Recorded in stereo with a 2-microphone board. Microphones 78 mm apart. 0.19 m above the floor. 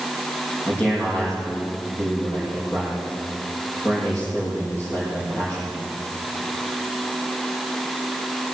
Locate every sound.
0.7 s a man speaking: 25° left (ahead or behind), 7 m